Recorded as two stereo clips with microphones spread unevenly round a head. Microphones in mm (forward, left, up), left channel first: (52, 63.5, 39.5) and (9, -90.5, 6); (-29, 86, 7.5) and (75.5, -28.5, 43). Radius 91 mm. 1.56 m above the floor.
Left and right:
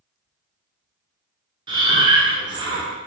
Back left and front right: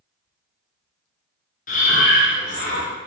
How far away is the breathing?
About 0.6 m.